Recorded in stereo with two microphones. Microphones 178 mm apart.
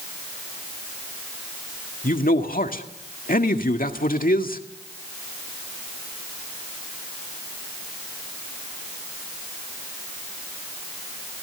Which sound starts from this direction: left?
A man speaking, at 2.0 s.